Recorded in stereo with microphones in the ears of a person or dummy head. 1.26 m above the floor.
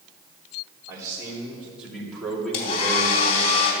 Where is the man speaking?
10° right (ahead or behind), 3.5 m; by 3.5 s 25° left (ahead or behind), 2.5 m.